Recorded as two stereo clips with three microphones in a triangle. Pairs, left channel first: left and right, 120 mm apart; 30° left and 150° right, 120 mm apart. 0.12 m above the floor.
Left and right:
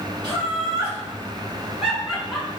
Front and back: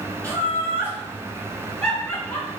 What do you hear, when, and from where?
0.2 s laughter: 105° right, 2.0 m; by 2.5 s 20° left, 1.6 m